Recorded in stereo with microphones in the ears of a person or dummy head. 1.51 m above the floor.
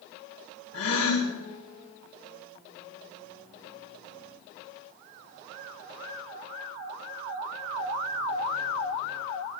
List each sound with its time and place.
0.7 s a gasp: 85° left, 3.5 m